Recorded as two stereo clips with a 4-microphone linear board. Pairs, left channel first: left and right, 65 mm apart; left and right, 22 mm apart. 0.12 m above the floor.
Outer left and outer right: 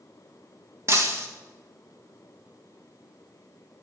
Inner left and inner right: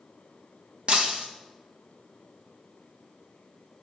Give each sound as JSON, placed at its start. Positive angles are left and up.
{"t": 0.9, "sound": "breaking glass", "side_deg": -45, "distance_m": 1.9}